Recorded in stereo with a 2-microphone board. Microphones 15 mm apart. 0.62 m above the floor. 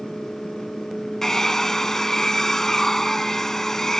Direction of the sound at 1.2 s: 30° left (ahead or behind).